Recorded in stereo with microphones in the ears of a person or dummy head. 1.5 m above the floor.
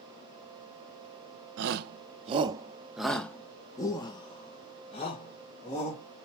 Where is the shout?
65° right (ahead or behind), 0.7 m; by 6.3 s 40° left (ahead or behind), 2 m.